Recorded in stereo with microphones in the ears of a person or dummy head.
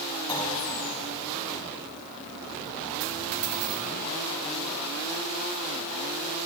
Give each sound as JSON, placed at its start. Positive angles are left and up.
{"t": 0.3, "sound": "a clunk", "side_deg": 20, "distance_m": 5.5}
{"t": 3.0, "sound": "a dropped coin", "side_deg": -70, "distance_m": 4.0}